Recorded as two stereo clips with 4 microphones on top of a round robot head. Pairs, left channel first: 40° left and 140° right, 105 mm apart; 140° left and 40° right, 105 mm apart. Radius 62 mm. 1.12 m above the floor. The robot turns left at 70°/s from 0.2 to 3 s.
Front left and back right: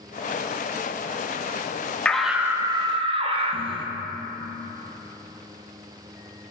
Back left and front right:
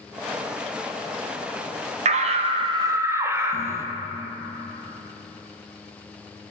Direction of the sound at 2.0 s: 40° right.